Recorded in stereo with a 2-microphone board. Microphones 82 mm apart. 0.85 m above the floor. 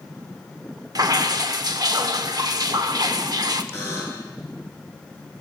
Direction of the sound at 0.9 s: 50° right (ahead or behind).